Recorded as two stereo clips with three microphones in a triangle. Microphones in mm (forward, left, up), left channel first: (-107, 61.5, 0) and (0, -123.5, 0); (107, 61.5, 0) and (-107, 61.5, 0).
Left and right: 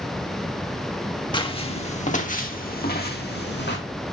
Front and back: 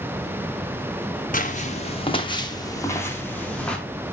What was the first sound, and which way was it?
Footsteps, 50° left.